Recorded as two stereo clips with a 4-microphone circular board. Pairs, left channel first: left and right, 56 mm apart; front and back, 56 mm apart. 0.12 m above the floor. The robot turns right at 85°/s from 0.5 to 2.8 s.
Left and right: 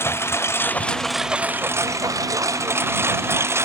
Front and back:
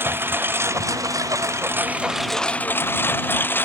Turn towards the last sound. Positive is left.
turn(degrees=-50)